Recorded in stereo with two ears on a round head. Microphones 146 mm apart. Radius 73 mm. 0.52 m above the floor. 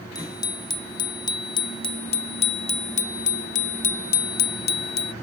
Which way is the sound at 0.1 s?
25° left (ahead or behind).